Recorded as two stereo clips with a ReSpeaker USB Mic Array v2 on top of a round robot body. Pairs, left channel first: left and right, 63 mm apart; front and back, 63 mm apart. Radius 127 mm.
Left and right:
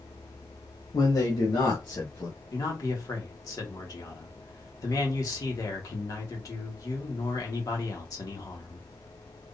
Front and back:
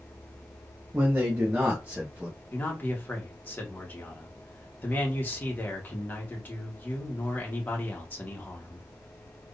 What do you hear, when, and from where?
0.9 s a man speaking: 115° left, 0.7 m; by 2.4 s 105° left, 1.7 m
2.5 s a man speaking: 60° left, 1.5 m